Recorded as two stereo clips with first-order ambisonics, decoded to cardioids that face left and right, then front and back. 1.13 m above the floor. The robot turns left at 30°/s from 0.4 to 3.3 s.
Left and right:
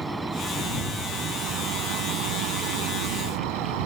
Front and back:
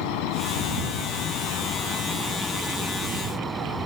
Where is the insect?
10° right; by 3.9 s 100° right.